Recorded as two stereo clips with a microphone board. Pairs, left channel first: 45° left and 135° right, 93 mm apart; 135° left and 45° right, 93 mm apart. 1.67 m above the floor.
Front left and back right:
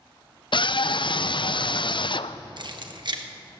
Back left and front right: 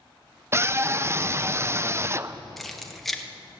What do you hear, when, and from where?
0.5 s a scream: 15° left, 0.5 m
2.6 s keys jangling: 140° right, 1.1 m